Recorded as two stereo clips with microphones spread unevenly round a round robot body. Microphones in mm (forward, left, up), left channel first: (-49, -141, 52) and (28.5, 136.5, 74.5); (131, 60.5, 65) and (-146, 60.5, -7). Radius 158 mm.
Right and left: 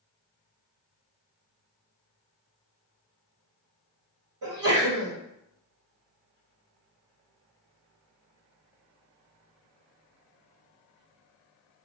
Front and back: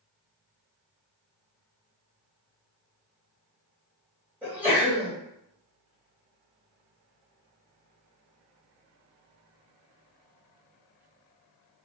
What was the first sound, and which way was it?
A sneeze, 100° left.